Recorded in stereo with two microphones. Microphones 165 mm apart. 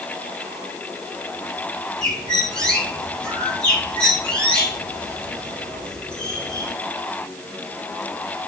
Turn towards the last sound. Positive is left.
turn(degrees=5)  # may be behind; listen again after turning